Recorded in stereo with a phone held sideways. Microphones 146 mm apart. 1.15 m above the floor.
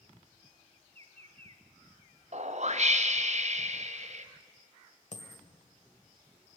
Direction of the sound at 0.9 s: 45° right (ahead or behind).